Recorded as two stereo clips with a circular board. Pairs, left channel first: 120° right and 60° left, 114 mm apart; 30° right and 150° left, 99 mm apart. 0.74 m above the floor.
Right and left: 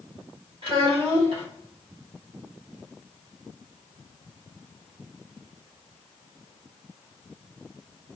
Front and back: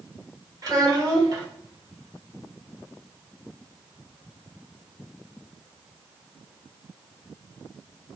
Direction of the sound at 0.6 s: 100° left.